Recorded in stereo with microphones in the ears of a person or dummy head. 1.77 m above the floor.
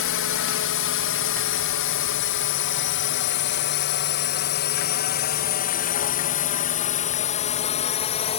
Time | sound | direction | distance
0.0 | a drone | 65° left (ahead or behind) | ?